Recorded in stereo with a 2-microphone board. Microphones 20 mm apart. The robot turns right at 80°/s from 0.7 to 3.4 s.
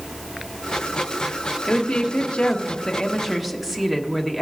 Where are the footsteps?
I don't hear footsteps.